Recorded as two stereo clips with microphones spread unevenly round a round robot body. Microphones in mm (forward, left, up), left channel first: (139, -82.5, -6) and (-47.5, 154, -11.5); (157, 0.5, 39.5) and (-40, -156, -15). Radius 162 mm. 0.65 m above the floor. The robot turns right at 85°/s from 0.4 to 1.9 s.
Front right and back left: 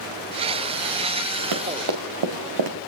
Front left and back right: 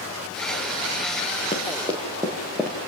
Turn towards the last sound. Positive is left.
turn(degrees=125)